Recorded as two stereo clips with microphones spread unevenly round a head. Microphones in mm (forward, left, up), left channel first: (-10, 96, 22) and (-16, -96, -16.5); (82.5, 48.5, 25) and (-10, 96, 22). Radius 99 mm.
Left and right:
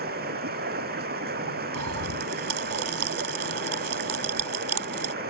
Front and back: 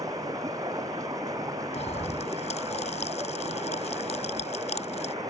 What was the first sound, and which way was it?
Running water, 135° right.